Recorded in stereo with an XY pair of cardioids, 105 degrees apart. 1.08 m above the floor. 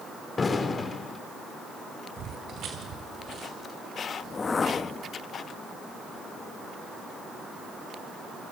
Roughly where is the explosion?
Ahead left.